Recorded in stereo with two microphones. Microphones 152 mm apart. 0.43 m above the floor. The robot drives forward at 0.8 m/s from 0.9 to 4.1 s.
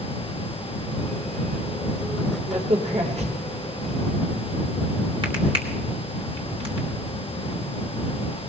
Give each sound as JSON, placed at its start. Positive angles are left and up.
{"t": 2.5, "sound": "a crack", "side_deg": -45, "distance_m": 2.0}